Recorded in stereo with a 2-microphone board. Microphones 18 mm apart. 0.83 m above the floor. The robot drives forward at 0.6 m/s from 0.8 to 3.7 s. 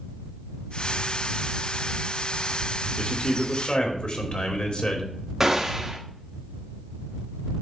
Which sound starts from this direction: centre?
A gunshot, at 5.4 s.